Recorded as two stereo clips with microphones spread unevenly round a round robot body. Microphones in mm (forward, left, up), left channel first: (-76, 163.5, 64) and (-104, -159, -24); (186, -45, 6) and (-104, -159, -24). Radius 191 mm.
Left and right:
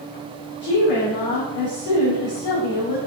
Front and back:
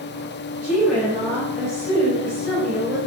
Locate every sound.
0.6 s a woman speaking: 110° left, 2.5 m